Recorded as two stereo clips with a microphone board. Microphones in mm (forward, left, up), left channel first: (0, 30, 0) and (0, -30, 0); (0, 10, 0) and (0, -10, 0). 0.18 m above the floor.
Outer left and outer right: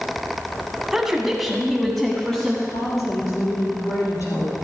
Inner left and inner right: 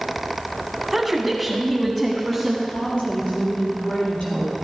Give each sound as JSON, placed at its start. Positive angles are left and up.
{"t": 0.9, "sound": "a woman speaking", "side_deg": -5, "distance_m": 1.5}
{"t": 2.7, "sound": "a woman speaking", "side_deg": 70, "distance_m": 4.5}